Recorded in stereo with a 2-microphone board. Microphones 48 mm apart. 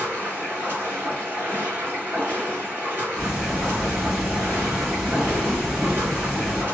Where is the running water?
40° right (ahead or behind), 1.3 m.